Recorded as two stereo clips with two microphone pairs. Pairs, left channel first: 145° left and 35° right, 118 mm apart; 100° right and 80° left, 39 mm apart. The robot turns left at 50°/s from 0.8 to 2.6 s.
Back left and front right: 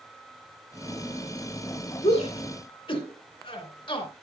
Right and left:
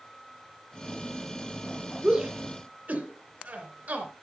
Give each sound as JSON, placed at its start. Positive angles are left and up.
{"t": 2.0, "sound": "a shout", "azimuth_deg": 145, "distance_m": 3.0}